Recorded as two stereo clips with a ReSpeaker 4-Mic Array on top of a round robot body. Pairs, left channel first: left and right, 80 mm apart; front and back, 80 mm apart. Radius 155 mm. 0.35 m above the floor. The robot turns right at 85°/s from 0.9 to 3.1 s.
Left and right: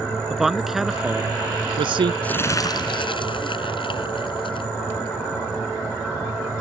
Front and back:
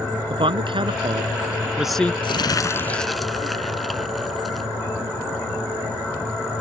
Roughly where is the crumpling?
Ahead.